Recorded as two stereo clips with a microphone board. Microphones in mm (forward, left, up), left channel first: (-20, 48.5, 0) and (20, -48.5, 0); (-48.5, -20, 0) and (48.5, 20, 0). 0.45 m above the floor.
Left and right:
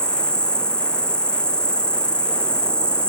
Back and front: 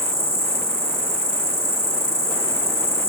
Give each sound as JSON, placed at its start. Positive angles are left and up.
{"t": 0.0, "sound": "an insect", "azimuth_deg": 30, "distance_m": 0.8}